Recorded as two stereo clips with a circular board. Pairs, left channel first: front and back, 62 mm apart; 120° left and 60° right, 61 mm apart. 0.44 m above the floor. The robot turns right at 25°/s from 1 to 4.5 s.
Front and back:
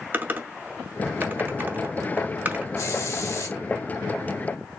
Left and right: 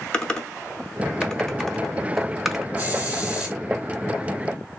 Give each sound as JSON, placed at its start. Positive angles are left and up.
{"t": 0.1, "sound": "typing on a keyboard", "azimuth_deg": 180, "distance_m": 0.8}
{"t": 2.8, "sound": "a hiss", "azimuth_deg": -5, "distance_m": 1.9}